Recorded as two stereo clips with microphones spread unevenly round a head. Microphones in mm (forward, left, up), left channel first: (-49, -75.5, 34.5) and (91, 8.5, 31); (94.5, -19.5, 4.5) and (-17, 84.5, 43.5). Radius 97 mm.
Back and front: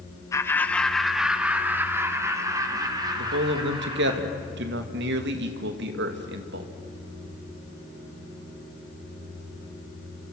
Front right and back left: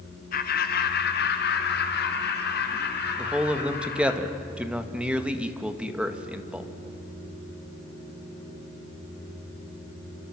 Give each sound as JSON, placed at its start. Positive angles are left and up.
{"t": 0.3, "sound": "laughter", "azimuth_deg": -75, "distance_m": 2.5}
{"t": 3.2, "sound": "a man speaking", "azimuth_deg": 50, "distance_m": 1.9}